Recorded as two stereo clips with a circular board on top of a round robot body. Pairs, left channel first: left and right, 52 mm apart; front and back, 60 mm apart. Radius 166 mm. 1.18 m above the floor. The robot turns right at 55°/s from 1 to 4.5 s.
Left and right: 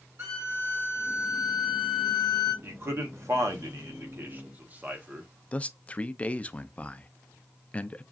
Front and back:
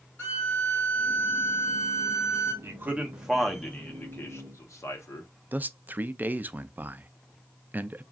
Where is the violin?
60° right, 0.9 m; by 2.5 s 25° left, 0.9 m.